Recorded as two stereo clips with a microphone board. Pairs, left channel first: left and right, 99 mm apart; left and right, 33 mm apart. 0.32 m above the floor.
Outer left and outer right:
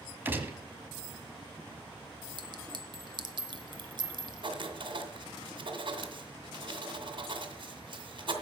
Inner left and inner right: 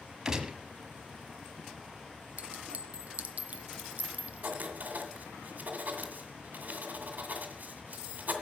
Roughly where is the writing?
Right.